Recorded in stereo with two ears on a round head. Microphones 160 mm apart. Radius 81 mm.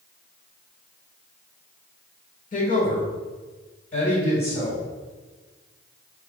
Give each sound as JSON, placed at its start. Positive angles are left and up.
{"t": 2.5, "sound": "a woman speaking", "side_deg": 45, "distance_m": 1.3}